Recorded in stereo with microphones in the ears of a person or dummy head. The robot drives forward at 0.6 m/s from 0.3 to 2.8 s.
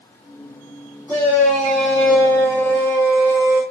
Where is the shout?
5° right (ahead or behind), 4 m; by 3.6 s 10° right (ahead or behind), 3 m.